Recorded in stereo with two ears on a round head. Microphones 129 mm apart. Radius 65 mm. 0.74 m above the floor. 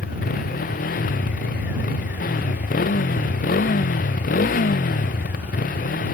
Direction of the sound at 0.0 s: 65° left (ahead or behind).